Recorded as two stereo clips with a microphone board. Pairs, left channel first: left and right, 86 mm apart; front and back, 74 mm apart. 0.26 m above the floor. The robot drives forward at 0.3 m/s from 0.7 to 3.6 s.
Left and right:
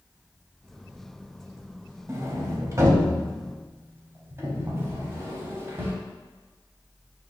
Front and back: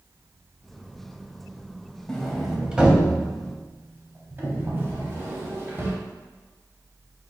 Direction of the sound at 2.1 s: 75° right.